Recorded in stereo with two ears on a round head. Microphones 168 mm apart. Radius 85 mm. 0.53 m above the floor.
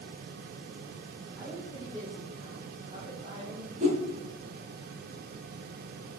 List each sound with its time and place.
1.4 s a woman speaking: 20° right (ahead or behind), 3.5 m; by 3.7 s 40° right (ahead or behind), 3.5 m
3.8 s a whoosh: 40° right (ahead or behind), 2 m